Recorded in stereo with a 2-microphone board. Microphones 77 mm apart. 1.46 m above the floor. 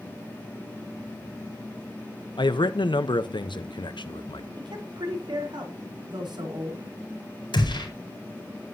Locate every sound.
2.4 s a man speaking: 80° left, 0.9 m
4.6 s a woman speaking: 75° right (ahead or behind), 4 m
7.5 s a gunshot: 80° left, 5 m